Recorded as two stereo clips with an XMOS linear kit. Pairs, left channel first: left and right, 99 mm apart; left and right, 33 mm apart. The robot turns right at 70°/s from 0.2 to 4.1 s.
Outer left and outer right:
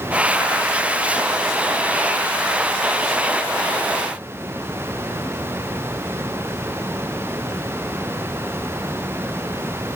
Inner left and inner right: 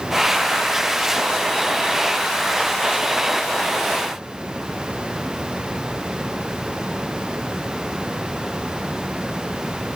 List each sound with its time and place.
Only background noise.